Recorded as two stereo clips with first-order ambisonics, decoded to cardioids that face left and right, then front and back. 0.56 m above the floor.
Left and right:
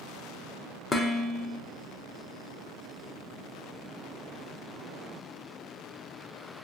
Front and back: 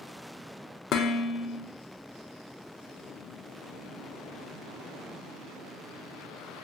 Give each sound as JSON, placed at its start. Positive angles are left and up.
{"t": 0.9, "sound": "dishes clattering", "azimuth_deg": 25, "distance_m": 0.5}